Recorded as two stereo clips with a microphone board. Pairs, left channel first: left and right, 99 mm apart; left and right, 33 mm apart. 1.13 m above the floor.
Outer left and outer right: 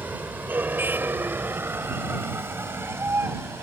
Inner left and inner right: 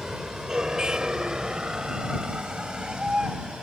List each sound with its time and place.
0.0 s a vehicle: 20° right (ahead or behind); by 3.6 s 25° right (ahead or behind)